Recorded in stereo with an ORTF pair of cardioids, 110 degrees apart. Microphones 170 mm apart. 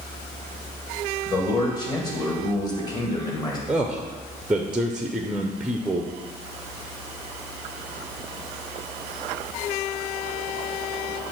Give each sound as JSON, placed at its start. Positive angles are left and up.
{"t": 1.2, "sound": "a man speaking", "azimuth_deg": 25, "distance_m": 1.9}
{"t": 3.7, "sound": "a man speaking", "azimuth_deg": -5, "distance_m": 0.6}